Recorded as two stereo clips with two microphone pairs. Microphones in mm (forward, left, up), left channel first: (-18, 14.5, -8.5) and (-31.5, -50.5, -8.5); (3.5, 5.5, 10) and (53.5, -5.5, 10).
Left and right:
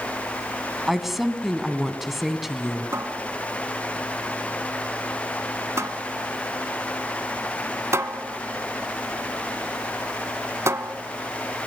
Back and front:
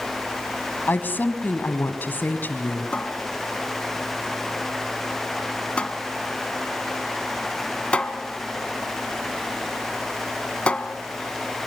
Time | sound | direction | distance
0.9 | a woman speaking | 175° left | 1.7 m
2.9 | a cupboard door | 130° right | 1.1 m